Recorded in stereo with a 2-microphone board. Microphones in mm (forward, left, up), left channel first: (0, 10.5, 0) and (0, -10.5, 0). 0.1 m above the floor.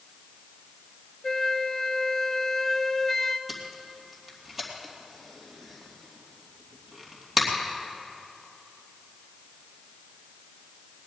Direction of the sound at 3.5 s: 20° right (ahead or behind).